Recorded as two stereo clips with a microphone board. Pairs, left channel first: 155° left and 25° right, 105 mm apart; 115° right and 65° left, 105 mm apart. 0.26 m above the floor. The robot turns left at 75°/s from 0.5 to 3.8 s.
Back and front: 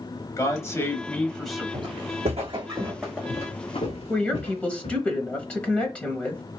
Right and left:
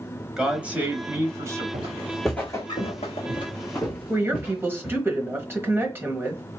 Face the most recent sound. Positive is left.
turn(degrees=100)